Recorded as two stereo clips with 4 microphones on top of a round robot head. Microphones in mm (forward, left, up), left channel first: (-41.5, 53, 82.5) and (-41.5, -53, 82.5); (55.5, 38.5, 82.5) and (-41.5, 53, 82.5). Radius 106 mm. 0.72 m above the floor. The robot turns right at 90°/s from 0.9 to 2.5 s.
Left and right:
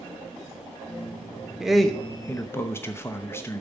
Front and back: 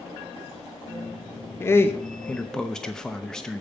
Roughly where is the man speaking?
Ahead.